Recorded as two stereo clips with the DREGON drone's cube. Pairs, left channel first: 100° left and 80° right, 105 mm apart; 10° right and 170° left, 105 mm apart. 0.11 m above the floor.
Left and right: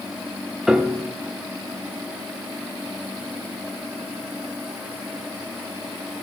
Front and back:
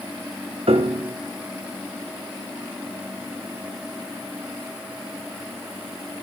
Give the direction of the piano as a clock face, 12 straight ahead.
5 o'clock.